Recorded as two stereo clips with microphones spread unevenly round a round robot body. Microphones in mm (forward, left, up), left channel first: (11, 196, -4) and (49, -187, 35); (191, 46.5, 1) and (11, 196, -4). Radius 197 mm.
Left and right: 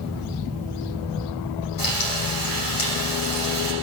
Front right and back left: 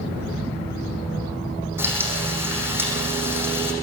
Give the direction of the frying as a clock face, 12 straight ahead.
10 o'clock.